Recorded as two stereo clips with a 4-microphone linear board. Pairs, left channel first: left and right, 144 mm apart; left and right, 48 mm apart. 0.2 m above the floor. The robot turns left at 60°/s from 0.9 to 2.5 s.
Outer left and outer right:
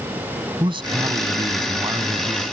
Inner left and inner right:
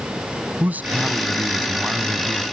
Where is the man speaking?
75° right; by 2.5 s 170° right.